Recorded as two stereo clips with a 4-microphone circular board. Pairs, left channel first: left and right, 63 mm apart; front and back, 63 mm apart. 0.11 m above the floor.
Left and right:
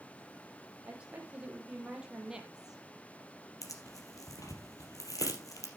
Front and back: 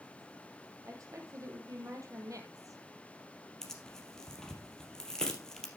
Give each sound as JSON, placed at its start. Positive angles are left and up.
{"t": 0.8, "sound": "a woman speaking", "azimuth_deg": -155, "distance_m": 3.5}
{"t": 3.6, "sound": "tearing paper", "azimuth_deg": 80, "distance_m": 3.0}